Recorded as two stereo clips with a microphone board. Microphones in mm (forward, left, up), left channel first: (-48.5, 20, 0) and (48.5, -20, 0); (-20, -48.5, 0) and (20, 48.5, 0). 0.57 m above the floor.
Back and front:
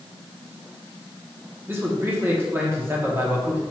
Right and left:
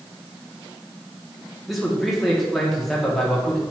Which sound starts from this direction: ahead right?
A man speaking, at 1.7 s.